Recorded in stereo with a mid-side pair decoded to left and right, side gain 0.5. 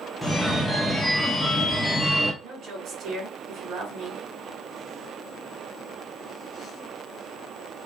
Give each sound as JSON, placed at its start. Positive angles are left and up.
{"t": 0.2, "sound": "a phone ringing", "azimuth_deg": 0, "distance_m": 0.9}
{"t": 2.4, "sound": "a woman speaking", "azimuth_deg": -60, "distance_m": 3.0}